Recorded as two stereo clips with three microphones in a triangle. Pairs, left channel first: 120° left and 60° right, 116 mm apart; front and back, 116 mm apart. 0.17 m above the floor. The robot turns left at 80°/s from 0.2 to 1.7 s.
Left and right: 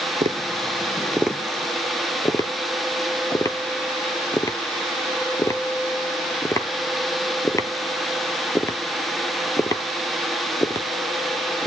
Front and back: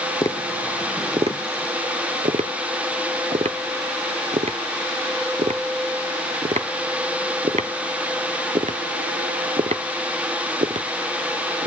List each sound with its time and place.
0.2 s tapping: 60° right, 0.6 m; by 11.7 s straight behind, 0.6 m